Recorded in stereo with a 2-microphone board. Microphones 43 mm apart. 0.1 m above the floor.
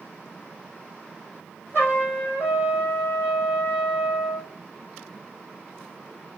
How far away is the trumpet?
About 3 m.